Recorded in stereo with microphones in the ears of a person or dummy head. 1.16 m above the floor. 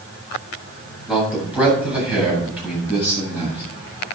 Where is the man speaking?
5° right (ahead or behind), 8 m; by 3.6 s 10° right (ahead or behind), 9 m.